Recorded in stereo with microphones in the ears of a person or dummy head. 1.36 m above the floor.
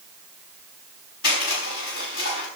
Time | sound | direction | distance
1.2 | crushing | 55° left (ahead or behind) | 6 m